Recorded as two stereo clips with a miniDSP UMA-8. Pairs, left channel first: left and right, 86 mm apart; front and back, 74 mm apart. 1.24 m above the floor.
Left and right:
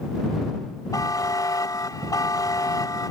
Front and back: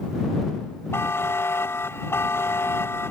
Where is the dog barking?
I don't hear a dog barking.